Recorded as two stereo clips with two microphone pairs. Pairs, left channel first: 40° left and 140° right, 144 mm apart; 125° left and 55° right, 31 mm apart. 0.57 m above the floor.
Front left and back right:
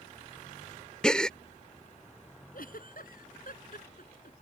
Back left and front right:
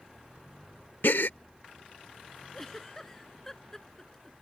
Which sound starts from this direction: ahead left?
A giggle, at 2.5 s.